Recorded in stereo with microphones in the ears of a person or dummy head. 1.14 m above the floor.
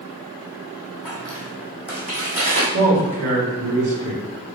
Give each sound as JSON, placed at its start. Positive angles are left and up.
{"t": 1.1, "sound": "footsteps", "side_deg": -5, "distance_m": 1.3}
{"t": 2.7, "sound": "a man speaking", "side_deg": -55, "distance_m": 1.8}